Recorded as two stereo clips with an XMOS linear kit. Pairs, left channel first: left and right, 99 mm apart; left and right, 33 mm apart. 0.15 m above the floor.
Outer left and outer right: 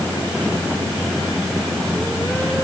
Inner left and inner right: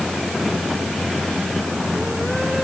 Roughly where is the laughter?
I don't hear laughter.